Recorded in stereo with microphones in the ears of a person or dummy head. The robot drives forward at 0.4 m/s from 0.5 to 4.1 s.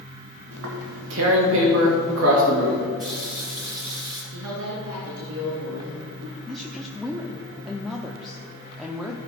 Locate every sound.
0.5 s tearing paper: 80° right, 2 m; by 2.9 s 60° right (ahead or behind), 2.5 m
3.0 s a running tap: centre (ahead or behind), 4 m
4.3 s a woman speaking: 80° right, 2.5 m
6.5 s a woman speaking: centre (ahead or behind), 0.7 m